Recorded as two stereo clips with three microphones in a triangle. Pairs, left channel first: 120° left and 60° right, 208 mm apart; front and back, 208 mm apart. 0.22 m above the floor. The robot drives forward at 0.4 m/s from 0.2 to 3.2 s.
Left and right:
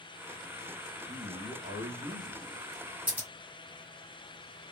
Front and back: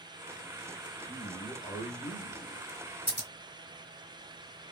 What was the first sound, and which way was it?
A man speaking, 40° right.